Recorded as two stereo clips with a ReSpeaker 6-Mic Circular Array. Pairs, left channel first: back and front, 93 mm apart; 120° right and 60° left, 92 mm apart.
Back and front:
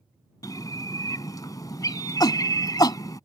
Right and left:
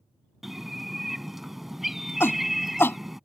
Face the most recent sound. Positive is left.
turn(degrees=-175)